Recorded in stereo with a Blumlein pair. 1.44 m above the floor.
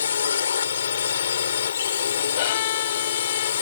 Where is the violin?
55° left.